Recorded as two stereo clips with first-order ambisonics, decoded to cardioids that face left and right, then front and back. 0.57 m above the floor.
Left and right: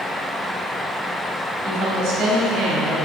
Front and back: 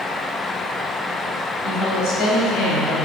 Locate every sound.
1.6 s a woman speaking: 50° right, 2.5 m; by 3.1 s 40° right, 3.5 m